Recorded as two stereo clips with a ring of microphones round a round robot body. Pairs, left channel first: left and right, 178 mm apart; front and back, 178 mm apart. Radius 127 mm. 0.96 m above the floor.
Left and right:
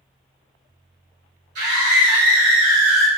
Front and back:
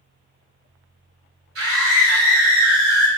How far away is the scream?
About 1.4 m.